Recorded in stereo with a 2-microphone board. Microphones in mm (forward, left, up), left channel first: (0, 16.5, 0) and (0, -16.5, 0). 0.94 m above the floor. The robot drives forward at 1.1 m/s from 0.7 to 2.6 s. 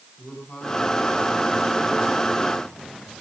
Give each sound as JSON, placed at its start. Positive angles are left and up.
{"t": 0.2, "sound": "a man speaking", "side_deg": 35, "distance_m": 7.5}